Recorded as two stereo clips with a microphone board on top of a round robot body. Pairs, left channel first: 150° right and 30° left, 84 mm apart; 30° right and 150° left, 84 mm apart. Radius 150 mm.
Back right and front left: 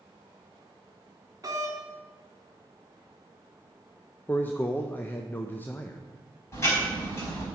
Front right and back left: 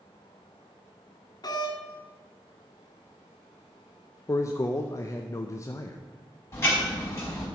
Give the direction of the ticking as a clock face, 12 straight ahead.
3 o'clock.